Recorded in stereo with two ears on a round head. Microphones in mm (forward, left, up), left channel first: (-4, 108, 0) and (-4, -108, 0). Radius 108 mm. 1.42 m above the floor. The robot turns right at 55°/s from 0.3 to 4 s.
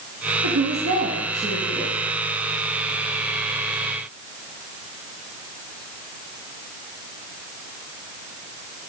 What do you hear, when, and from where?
0.4 s a woman speaking: 85° right, 1.5 m; by 1.9 s straight ahead, 1.5 m